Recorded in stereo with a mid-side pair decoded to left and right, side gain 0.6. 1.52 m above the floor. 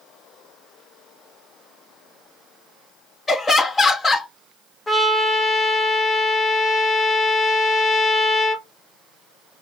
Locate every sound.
3.3 s laughter: 15° left, 1.0 m
4.9 s a trumpet: 15° left, 0.9 m